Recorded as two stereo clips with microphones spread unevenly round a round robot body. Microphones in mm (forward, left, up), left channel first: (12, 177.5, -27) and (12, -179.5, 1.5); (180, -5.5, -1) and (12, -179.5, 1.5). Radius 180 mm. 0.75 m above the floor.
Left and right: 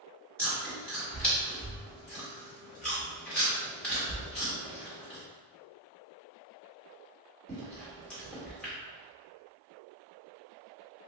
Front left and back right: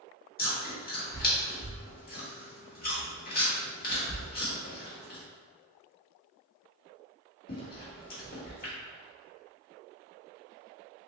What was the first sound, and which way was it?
Chewing, 5° left.